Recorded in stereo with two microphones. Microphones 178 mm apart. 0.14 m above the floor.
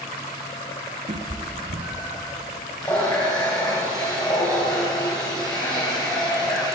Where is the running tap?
25° left (ahead or behind), 2.5 m.